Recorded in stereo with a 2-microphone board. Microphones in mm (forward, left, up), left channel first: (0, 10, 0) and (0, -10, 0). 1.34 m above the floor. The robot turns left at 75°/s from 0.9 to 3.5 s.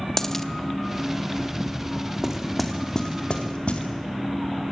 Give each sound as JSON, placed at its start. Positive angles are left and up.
{"t": 0.2, "sound": "a dropped coin", "side_deg": 20, "distance_m": 0.9}
{"t": 2.2, "sound": "knocking", "side_deg": -25, "distance_m": 2.0}